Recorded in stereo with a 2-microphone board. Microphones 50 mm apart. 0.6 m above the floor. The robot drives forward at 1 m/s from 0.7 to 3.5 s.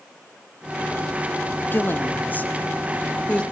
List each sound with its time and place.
1.7 s a woman speaking: 40° left (ahead or behind), 1.3 m; by 3.4 s 20° left (ahead or behind), 2 m